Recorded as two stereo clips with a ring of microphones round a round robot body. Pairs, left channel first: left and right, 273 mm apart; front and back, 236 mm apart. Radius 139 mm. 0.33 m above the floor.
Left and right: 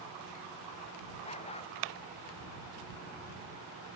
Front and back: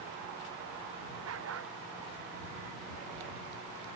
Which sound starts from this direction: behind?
A dog barking, at 1.2 s.